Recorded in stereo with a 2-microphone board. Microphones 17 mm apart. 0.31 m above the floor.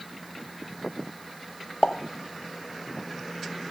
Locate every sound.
1.8 s a pop: 55° left (ahead or behind), 0.7 m